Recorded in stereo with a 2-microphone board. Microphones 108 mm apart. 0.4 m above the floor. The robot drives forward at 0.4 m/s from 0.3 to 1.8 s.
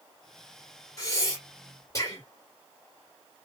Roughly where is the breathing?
Left.